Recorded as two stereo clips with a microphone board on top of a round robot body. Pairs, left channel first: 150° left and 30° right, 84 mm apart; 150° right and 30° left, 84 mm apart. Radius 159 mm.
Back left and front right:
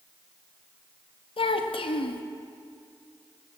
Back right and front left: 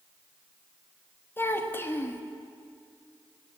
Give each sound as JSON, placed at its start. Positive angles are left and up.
{"t": 1.4, "sound": "a child speaking", "azimuth_deg": 145, "distance_m": 1.2}